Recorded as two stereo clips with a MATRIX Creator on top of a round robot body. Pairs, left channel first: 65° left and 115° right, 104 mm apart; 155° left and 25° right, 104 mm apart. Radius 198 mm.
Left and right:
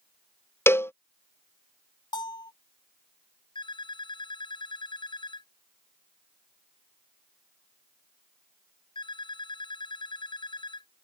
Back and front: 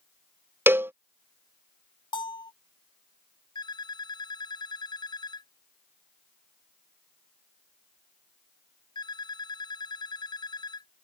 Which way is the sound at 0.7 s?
25° left.